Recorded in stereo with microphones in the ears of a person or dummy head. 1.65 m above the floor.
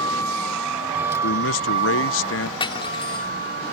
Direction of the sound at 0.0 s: 25° left (ahead or behind).